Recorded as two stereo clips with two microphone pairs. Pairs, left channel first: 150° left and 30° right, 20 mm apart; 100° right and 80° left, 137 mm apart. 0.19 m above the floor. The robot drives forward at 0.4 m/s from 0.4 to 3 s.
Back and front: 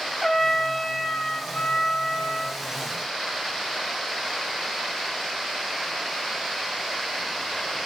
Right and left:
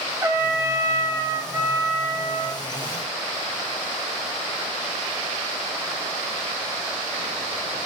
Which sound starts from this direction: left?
A trumpet, at 0.2 s.